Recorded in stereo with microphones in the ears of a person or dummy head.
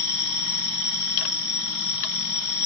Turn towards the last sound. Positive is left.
turn(degrees=85)